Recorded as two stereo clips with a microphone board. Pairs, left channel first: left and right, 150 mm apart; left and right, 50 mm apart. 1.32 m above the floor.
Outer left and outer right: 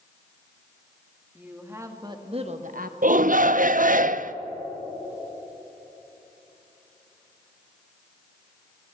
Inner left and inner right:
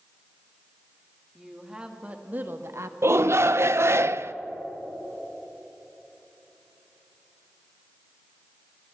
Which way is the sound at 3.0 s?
60° right (ahead or behind).